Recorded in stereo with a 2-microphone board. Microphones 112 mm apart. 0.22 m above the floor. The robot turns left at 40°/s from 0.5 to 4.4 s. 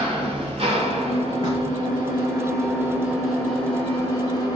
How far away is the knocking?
About 1.9 m.